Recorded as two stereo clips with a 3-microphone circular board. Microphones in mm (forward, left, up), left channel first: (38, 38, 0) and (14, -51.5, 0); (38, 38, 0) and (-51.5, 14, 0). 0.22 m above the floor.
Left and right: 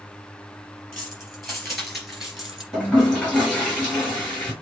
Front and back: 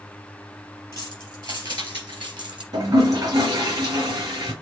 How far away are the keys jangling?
About 3.5 m.